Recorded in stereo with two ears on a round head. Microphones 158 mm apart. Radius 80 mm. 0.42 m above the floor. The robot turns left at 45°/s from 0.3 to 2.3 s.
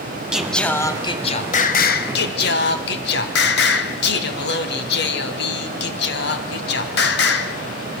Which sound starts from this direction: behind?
Singing, at 0.3 s.